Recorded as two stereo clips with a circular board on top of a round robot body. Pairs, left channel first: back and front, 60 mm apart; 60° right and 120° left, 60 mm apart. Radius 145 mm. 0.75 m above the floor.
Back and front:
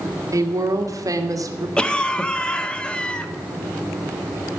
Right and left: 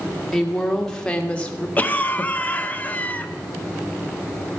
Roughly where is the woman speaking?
Ahead left.